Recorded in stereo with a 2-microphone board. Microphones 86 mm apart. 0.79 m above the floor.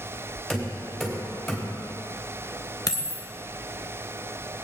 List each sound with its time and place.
0.5 s knocking: centre (ahead or behind), 3.5 m
2.9 s a dropped coin: 45° left (ahead or behind), 0.8 m